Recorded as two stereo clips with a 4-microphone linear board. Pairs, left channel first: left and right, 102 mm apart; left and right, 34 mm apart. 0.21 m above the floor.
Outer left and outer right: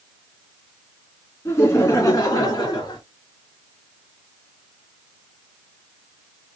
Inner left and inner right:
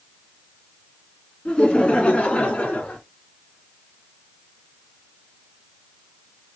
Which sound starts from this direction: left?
Laughter, at 1.4 s.